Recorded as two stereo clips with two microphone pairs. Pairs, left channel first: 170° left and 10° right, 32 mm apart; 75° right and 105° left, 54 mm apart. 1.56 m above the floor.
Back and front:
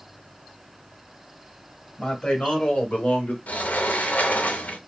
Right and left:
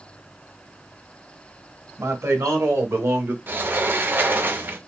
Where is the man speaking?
110° left, 1.7 m; by 3.4 s 145° left, 1.0 m.